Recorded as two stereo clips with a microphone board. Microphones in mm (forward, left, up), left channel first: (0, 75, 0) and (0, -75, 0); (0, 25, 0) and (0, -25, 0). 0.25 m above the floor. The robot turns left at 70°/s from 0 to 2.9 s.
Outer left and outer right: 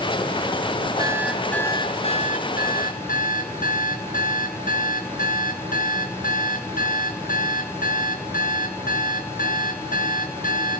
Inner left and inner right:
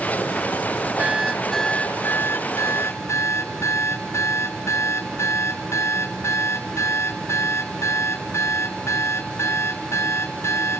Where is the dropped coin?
No dropped coin in this recording.